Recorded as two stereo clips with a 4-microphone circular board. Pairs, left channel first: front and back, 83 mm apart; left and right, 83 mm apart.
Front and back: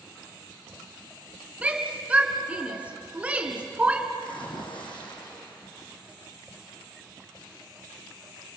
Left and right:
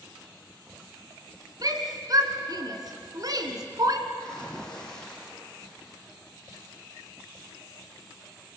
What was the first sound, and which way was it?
A shout, 110° right.